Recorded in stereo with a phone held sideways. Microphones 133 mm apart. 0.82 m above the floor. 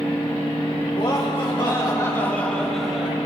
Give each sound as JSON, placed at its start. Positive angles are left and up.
{"t": 0.9, "sound": "laughter", "side_deg": 50, "distance_m": 3.0}